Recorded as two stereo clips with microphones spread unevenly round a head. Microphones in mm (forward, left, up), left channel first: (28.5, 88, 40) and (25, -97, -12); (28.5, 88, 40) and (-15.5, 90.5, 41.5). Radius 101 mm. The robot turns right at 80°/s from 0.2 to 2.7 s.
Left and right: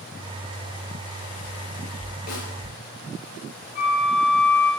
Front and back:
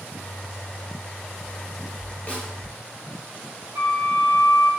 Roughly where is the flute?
Behind left.